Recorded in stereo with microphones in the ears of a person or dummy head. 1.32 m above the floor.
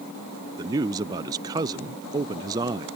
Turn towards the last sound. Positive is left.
turn(degrees=-20)  # may be behind; listen again after turning